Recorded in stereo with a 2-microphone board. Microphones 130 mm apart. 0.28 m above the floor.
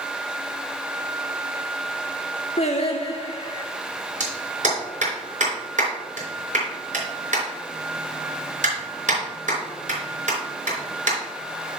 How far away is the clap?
About 4 m.